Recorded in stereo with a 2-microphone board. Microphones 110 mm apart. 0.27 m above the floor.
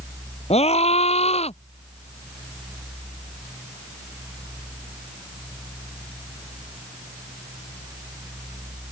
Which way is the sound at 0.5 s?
75° left (ahead or behind).